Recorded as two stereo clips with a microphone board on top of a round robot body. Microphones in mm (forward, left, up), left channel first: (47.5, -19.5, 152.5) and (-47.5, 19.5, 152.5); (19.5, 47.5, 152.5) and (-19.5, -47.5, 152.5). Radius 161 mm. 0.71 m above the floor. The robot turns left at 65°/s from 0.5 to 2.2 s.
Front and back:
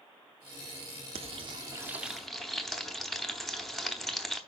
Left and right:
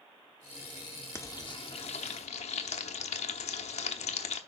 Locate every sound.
1.1 s frying: 135° left, 0.8 m; by 4.4 s 65° left, 0.8 m